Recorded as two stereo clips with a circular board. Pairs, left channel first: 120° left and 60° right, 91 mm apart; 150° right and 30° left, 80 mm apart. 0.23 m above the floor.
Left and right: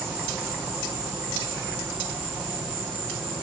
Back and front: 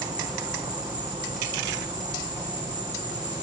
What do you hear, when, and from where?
0.0 s an insect: 20° left, 3 m